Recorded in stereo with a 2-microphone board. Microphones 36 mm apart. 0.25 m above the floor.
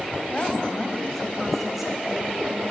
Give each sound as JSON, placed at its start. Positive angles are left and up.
{"t": 0.3, "sound": "a woman speaking", "side_deg": 35, "distance_m": 1.5}